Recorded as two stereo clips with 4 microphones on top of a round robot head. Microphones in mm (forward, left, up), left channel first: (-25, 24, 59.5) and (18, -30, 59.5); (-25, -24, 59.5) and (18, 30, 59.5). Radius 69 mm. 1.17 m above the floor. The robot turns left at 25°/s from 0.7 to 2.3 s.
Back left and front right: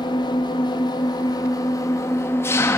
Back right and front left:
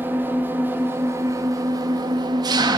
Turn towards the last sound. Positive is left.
turn(degrees=75)